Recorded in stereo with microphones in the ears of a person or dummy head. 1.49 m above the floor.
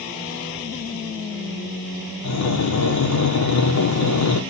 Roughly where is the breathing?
Left.